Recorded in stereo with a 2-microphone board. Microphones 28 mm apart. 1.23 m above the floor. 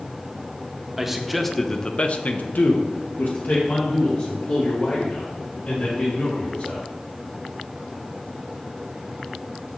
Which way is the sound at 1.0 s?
10° right (ahead or behind).